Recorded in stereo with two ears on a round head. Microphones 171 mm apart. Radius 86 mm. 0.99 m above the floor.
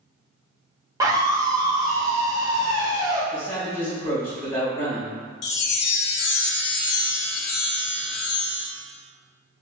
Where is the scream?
15° right (ahead or behind), 1.0 m.